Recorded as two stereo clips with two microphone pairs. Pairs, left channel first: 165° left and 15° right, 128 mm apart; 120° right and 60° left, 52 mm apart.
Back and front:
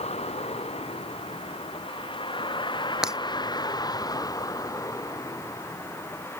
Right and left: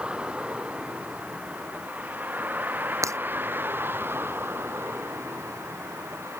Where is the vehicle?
130° left; by 6.4 s 95° left.